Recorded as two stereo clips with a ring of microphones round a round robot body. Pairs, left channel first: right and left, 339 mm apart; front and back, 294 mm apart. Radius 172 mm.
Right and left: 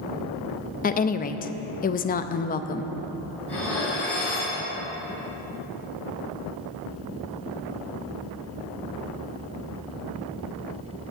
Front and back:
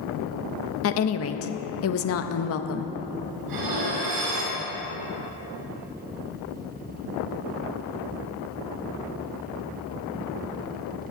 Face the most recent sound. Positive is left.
turn(degrees=-175)